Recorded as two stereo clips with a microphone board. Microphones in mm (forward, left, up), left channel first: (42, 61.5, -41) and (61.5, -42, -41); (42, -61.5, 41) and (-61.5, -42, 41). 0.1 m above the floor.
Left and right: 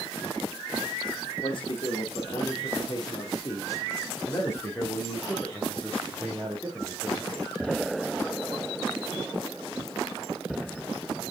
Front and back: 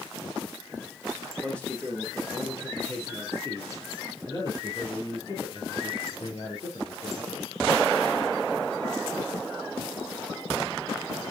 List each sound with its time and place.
1.4 s a man speaking: 70° left, 3.5 m; by 7.5 s straight ahead, 3 m